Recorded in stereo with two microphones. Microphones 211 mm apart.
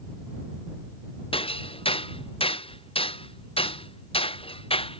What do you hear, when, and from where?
1.3 s hammering: 25° left (ahead or behind)